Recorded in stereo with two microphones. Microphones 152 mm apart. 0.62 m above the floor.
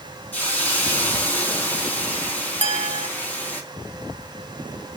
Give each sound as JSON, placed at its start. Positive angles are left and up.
{"t": 0.3, "sound": "a hiss", "side_deg": 10, "distance_m": 3.5}
{"t": 2.6, "sound": "a clink", "side_deg": -50, "distance_m": 0.5}